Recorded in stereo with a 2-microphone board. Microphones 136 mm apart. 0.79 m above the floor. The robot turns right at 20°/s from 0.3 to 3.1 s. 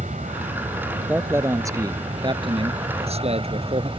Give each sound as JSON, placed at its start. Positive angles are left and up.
{"t": 0.0, "sound": "an aircraft", "azimuth_deg": -100}
{"t": 1.1, "sound": "a man speaking", "azimuth_deg": -165}